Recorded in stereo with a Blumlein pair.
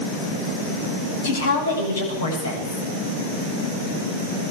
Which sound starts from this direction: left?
A woman speaking, at 1.2 s.